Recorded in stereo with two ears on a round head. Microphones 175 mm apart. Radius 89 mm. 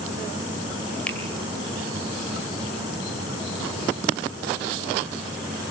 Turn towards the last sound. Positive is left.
turn(degrees=5)  # may be behind; listen again after turning